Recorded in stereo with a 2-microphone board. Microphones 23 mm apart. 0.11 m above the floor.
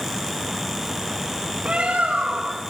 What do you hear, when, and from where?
1.6 s a bird: 55° right (ahead or behind), 3.5 m